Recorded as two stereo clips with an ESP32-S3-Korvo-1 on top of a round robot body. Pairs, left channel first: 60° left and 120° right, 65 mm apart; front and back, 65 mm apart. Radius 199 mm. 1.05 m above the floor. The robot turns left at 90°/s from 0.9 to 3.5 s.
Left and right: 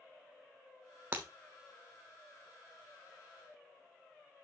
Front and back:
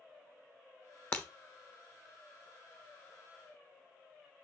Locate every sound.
1.1 s breaking glass: 60° right, 0.6 m; by 1.3 s 70° right, 0.6 m